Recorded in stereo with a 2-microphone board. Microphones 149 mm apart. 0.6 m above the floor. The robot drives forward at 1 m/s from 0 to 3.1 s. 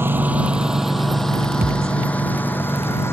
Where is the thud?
75° right (ahead or behind).